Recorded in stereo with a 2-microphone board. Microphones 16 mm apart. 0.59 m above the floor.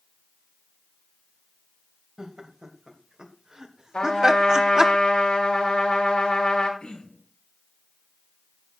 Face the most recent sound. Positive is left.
turn(degrees=75)  # may be behind; listen again after turning